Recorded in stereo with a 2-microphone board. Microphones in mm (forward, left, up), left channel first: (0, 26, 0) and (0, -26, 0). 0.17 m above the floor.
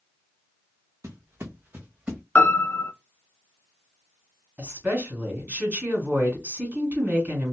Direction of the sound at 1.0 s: 65° right (ahead or behind).